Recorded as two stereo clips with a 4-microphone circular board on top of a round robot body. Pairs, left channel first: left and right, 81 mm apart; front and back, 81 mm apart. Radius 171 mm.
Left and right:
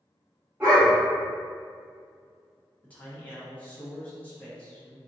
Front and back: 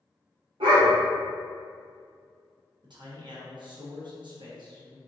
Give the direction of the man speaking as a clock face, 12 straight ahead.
7 o'clock.